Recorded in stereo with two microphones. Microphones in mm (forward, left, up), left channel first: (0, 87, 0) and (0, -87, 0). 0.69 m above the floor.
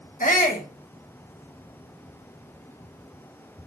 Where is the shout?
50° left (ahead or behind), 1.8 m.